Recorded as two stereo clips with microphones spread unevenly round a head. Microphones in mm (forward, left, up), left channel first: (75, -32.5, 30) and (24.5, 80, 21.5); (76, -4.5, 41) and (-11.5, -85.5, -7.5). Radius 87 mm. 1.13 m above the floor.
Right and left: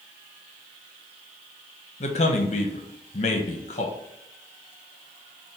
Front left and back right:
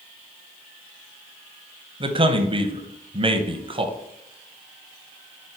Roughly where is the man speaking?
Right.